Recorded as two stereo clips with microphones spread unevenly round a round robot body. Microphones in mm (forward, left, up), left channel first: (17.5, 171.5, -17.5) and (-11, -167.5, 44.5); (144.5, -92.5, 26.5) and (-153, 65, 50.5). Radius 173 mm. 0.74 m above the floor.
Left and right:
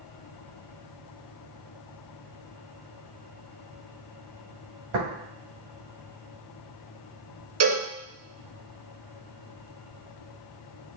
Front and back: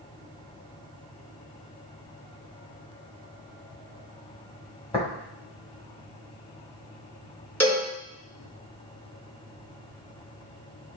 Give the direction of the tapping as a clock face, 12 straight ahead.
3 o'clock.